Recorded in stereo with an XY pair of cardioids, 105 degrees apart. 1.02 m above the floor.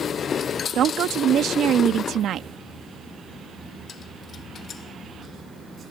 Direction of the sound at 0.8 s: 65° right.